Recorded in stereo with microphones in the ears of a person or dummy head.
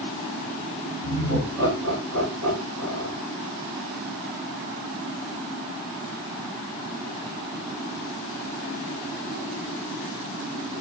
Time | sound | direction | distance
1.0 | laughter | 20° left (ahead or behind) | 3 m